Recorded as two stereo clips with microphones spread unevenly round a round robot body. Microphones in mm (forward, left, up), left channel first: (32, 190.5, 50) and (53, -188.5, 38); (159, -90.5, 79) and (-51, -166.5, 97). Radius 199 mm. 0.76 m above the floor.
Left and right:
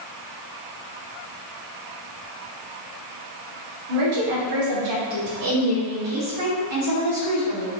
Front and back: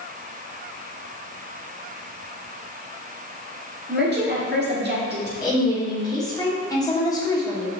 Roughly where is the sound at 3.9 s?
Behind right.